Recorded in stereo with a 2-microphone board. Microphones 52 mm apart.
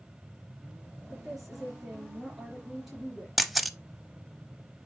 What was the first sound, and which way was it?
A woman speaking, 5° right (ahead or behind).